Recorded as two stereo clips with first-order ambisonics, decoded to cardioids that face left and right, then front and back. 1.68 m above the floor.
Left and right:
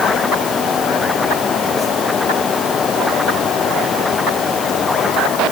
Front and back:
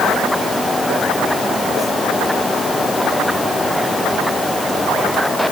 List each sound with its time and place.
Only background noise.